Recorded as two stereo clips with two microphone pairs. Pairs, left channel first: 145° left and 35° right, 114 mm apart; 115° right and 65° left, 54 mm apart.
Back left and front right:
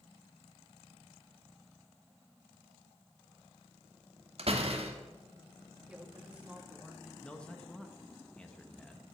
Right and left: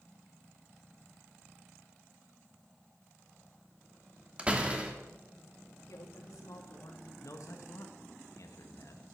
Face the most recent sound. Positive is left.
turn(degrees=-135)